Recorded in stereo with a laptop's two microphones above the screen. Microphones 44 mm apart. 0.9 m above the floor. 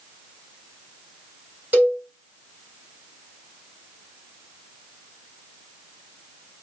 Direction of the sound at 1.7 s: 35° right (ahead or behind).